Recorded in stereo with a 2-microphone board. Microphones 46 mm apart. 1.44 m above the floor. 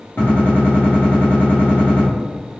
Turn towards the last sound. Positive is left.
turn(degrees=50)  # may be behind; listen again after turning